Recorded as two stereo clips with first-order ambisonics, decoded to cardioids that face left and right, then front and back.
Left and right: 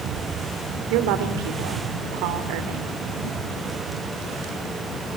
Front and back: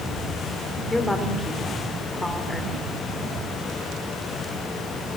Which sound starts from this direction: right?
A woman speaking, at 0.9 s.